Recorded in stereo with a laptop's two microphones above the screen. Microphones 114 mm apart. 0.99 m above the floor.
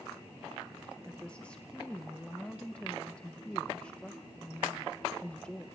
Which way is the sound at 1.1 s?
10° left (ahead or behind).